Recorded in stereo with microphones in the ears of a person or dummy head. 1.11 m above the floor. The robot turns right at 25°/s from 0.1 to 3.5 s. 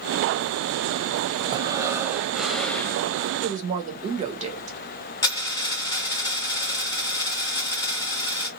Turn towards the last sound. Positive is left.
turn(degrees=20)  # may be behind; listen again after turning